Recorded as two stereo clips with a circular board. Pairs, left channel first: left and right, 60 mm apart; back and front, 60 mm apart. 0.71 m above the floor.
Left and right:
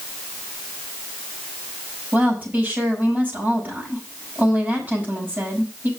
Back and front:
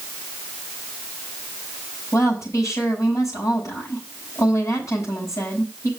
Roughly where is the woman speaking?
Behind right.